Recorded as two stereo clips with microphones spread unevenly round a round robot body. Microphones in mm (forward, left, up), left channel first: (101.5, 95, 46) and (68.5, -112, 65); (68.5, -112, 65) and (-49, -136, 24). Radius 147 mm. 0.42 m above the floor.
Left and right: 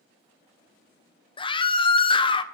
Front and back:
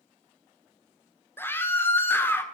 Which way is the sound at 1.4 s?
105° left.